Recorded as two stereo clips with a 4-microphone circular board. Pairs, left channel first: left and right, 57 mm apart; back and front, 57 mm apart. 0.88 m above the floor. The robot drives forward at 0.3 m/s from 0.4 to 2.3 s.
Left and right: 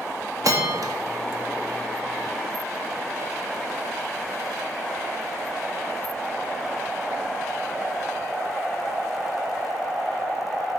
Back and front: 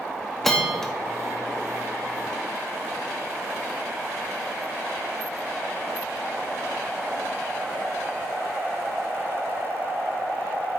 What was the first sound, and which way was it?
A bell, 95° right.